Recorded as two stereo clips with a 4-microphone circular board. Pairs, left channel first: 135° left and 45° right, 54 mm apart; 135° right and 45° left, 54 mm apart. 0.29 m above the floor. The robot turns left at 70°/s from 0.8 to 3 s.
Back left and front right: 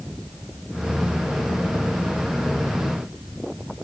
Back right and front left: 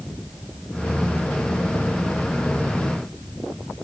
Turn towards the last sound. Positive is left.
No sound to turn to.